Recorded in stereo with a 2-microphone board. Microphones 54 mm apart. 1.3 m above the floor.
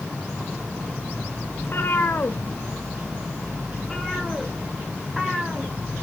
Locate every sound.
1.6 s a cat meowing: 55° left (ahead or behind), 1.6 m; by 5.7 s 15° right (ahead or behind), 2.5 m